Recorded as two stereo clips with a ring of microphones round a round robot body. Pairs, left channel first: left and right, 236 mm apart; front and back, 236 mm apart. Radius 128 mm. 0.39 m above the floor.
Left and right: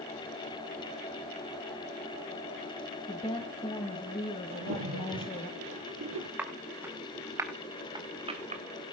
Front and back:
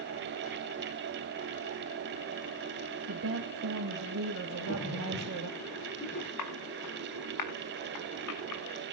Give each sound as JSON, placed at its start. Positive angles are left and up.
{"t": 3.1, "sound": "a woman speaking", "azimuth_deg": 160, "distance_m": 2.0}
{"t": 4.5, "sound": "a splash", "azimuth_deg": -60, "distance_m": 5.5}
{"t": 6.4, "sound": "footsteps", "azimuth_deg": -5, "distance_m": 4.5}